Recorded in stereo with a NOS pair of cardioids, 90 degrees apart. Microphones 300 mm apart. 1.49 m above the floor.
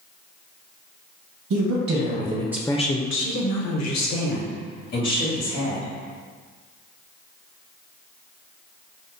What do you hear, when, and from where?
1.5 s a woman speaking: 60° right, 1.0 m; by 5.9 s 80° left, 2.5 m